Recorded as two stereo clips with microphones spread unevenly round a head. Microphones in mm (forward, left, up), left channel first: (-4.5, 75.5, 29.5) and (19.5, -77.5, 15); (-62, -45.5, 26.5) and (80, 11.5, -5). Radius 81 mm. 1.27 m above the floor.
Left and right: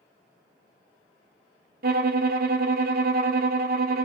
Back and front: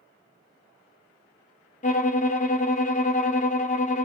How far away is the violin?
About 0.8 m.